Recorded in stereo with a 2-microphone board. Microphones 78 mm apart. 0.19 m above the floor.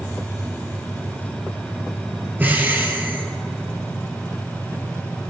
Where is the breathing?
25° right (ahead or behind), 2.5 m.